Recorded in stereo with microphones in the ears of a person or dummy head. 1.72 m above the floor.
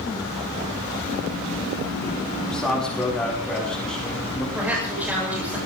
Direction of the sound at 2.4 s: 5° left (ahead or behind).